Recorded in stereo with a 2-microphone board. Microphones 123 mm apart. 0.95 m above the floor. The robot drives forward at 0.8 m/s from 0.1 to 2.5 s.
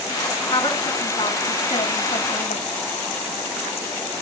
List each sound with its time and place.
0.5 s a woman speaking: 35° left (ahead or behind), 2.5 m; by 2.7 s 75° left (ahead or behind), 1.5 m